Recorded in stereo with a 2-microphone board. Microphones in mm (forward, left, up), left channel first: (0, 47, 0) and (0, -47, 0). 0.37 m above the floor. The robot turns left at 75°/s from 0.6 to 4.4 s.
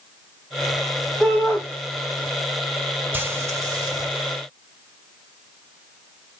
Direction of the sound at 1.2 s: 175° left.